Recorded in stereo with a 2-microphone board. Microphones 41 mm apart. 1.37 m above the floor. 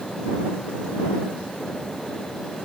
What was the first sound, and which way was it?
Only background noise.